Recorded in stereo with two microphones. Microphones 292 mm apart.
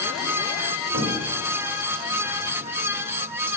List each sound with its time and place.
0.9 s a cupboard door: 50° right (ahead or behind), 2.5 m